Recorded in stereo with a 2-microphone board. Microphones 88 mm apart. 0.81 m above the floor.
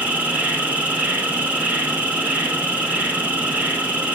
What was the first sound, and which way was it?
An insect, 20° right (ahead or behind).